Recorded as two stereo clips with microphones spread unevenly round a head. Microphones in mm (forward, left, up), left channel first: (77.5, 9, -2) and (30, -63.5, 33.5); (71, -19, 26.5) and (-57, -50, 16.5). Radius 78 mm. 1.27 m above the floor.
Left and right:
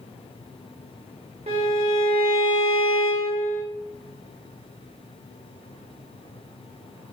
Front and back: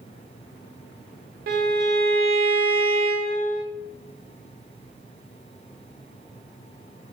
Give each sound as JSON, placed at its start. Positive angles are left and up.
{"t": 1.5, "sound": "a violin", "azimuth_deg": -175, "distance_m": 0.8}